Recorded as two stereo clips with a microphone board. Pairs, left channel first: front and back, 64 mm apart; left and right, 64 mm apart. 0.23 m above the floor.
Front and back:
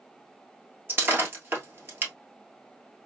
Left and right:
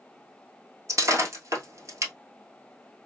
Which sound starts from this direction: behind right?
Breaking glass, at 0.9 s.